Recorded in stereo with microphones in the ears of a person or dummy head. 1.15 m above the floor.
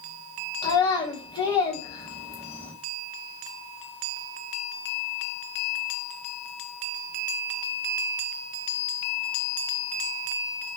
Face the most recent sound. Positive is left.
turn(degrees=25)  # may be behind; listen again after turning